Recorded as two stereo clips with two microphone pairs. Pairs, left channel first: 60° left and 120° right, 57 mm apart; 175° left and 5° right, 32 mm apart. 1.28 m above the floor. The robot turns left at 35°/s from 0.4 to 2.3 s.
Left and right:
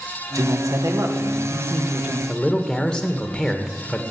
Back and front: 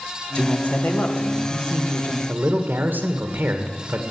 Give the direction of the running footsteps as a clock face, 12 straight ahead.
I don't hear running footsteps.